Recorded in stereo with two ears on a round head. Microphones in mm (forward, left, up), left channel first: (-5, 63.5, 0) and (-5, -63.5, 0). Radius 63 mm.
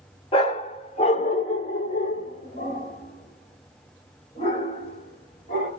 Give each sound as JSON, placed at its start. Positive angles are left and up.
{"t": 0.3, "sound": "a dog barking", "side_deg": 40, "distance_m": 1.1}